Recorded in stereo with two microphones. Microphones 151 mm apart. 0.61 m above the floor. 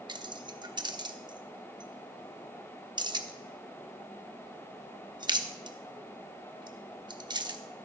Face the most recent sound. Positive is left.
turn(degrees=-30)  # may be behind; listen again after turning